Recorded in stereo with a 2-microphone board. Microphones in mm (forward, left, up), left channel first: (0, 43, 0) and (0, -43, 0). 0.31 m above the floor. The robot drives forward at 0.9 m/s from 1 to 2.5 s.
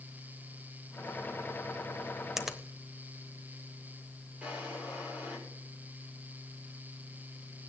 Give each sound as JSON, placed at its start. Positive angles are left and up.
{"t": 2.4, "sound": "a finger snap", "side_deg": -5, "distance_m": 1.0}
{"t": 4.4, "sound": "a drawer", "side_deg": -15, "distance_m": 6.5}